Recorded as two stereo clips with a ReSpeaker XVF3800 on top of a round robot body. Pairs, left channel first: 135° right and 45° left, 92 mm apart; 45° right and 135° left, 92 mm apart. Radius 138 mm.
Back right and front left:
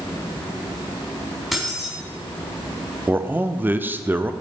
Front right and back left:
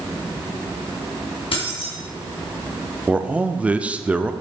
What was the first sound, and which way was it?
Keys jangling, 45° right.